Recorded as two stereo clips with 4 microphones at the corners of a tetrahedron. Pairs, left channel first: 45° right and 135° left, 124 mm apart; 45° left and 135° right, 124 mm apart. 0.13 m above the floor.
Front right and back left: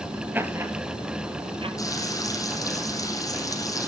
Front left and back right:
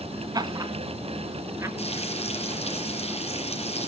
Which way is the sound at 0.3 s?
160° right.